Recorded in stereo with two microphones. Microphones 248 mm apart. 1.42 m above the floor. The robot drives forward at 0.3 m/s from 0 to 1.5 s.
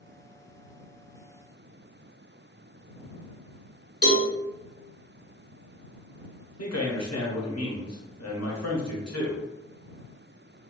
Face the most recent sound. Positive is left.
turn(degrees=80)